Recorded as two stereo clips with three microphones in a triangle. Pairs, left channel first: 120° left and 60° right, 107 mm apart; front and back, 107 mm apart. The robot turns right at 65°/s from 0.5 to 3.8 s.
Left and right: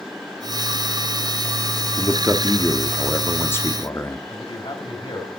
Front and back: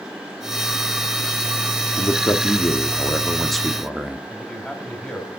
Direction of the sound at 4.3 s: 85° left.